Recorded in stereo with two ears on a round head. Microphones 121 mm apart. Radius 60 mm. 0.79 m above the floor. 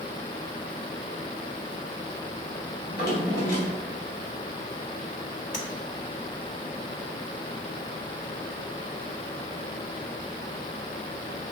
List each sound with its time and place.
2.9 s a drawer: 75° left (ahead or behind), 2.5 m
5.5 s tapping: 60° left (ahead or behind), 1.4 m